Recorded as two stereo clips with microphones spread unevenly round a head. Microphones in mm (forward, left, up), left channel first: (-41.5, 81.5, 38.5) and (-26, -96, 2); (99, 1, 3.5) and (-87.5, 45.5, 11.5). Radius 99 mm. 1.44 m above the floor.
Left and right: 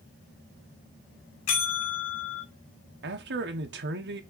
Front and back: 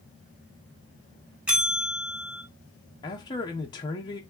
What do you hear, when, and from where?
1.5 s a bell: 80° left, 3.5 m
3.0 s a man speaking: 85° right, 1.2 m